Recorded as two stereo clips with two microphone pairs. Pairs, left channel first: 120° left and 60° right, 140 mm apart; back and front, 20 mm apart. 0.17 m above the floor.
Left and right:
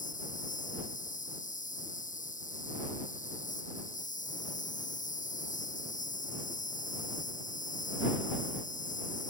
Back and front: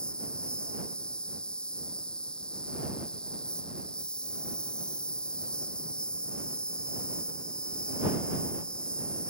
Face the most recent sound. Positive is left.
turn(degrees=145)